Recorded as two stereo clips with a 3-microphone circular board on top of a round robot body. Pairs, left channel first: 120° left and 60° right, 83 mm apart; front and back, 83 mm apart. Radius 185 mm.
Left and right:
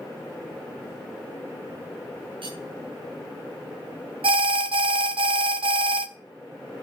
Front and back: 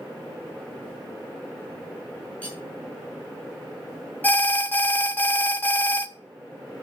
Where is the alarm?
70° right, 0.9 m.